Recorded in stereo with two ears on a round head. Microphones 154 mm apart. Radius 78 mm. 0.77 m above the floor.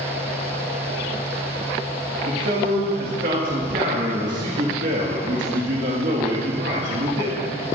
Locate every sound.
2.3 s a man speaking: 50° right (ahead or behind), 1.5 m